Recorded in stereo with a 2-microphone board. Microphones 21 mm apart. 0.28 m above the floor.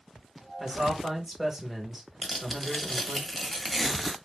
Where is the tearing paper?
Centre (ahead or behind), 0.9 m.